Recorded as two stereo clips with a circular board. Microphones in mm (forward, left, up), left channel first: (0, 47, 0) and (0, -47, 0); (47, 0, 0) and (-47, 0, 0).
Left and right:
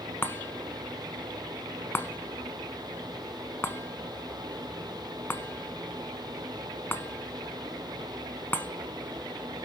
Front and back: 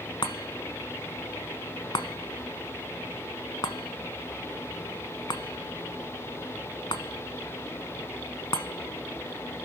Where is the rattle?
I don't hear a rattle.